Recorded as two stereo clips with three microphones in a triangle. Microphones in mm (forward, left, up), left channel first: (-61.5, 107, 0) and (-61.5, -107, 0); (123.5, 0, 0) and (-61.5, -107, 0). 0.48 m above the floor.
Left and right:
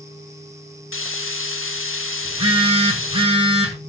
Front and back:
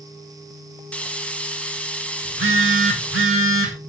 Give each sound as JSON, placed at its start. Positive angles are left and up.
{"t": 0.9, "sound": "frying", "azimuth_deg": 115, "distance_m": 0.7}
{"t": 2.2, "sound": "a phone buzzing", "azimuth_deg": -155, "distance_m": 1.8}